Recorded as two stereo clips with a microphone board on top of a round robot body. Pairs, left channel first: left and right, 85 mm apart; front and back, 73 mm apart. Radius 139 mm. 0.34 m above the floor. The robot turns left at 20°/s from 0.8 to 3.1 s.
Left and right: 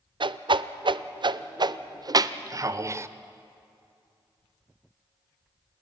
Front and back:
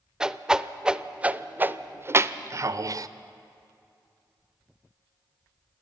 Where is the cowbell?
I don't hear a cowbell.